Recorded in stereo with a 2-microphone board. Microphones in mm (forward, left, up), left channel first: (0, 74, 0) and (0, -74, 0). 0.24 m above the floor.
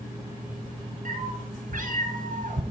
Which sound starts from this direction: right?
A cat meowing, at 1.1 s.